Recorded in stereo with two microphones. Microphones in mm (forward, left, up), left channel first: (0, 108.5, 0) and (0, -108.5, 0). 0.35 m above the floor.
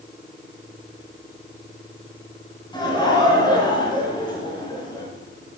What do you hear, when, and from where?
2.7 s laughter: 20° left (ahead or behind), 4 m